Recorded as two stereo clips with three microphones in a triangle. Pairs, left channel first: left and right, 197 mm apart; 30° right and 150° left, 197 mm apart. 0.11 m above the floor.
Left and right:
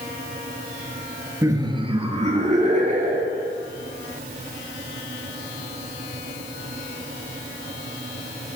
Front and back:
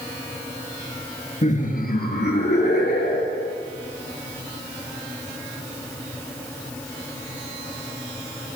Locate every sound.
1.4 s laughter: 25° right, 1.9 m; by 3.5 s 50° right, 4 m